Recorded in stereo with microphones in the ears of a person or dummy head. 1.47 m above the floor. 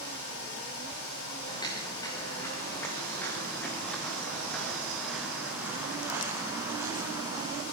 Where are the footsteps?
15° left (ahead or behind), 8.5 m; by 7.6 s 25° right (ahead or behind), 7 m.